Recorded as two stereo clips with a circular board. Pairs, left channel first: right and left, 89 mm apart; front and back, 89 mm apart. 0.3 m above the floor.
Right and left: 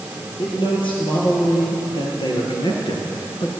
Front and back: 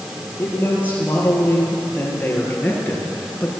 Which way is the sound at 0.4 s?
70° right.